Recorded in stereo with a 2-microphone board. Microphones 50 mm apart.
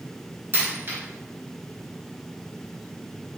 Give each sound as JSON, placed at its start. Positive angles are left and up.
{"t": 0.5, "sound": "a dropped coin", "side_deg": -45, "distance_m": 1.3}